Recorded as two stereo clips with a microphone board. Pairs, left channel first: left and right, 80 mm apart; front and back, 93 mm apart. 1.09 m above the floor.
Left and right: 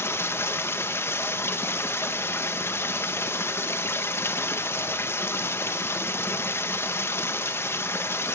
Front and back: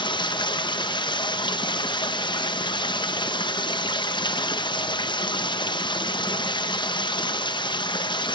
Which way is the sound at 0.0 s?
30° left.